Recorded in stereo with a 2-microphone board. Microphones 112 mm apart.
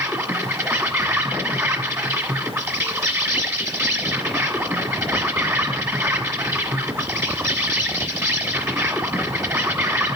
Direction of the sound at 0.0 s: 25° right (ahead or behind).